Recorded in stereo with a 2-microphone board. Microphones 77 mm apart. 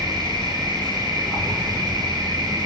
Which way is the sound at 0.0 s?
60° right (ahead or behind).